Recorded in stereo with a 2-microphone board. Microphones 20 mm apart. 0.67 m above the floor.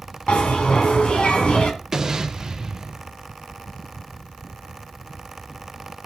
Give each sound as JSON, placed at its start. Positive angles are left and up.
{"t": 0.3, "sound": "a bell", "side_deg": 70, "distance_m": 2.0}
{"t": 1.9, "sound": "an explosion", "side_deg": -30, "distance_m": 1.7}